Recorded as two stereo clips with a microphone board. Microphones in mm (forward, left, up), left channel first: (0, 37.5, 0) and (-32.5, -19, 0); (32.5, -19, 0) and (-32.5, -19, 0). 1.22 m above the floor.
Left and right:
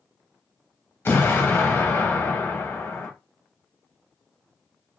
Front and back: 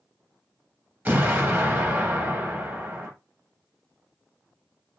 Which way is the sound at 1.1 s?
115° left.